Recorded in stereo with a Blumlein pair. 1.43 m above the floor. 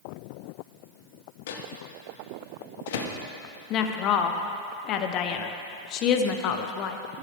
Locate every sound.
1.5 s a microwave: 55° left, 1.0 m
3.7 s a woman speaking: 35° left, 0.9 m